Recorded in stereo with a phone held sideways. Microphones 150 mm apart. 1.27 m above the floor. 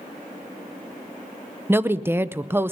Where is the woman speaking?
15° right (ahead or behind), 0.6 m.